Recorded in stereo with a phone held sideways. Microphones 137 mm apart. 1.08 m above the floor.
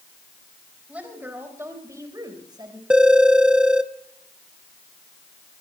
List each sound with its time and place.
0.9 s a woman speaking: 10° right (ahead or behind), 5 m; by 2.8 s 35° right (ahead or behind), 5 m
2.9 s a phone ringing: 5° right (ahead or behind), 0.9 m